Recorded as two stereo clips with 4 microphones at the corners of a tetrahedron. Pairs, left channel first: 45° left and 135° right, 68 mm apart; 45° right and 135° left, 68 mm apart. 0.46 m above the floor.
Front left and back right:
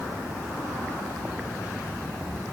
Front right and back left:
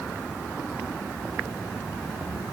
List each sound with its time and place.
Only background noise.